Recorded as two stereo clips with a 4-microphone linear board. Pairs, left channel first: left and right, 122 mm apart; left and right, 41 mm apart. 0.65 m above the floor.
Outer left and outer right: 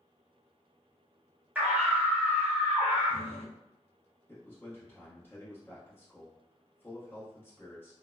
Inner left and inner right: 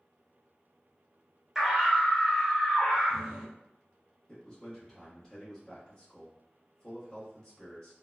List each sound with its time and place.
1.6 s a scream: 15° right (ahead or behind), 0.9 m
4.3 s a man speaking: 20° left (ahead or behind), 1.1 m